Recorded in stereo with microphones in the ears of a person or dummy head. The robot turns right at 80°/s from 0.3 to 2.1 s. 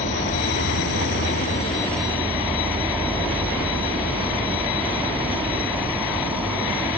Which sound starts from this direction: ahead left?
An insect, at 0.0 s.